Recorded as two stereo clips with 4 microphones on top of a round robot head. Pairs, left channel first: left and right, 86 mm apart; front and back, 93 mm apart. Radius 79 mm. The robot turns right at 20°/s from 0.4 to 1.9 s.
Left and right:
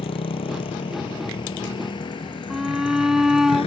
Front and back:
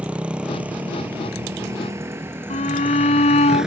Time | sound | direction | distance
0.0 | a motorcycle | 100° left | ?
2.5 | a shout | 5° right | ?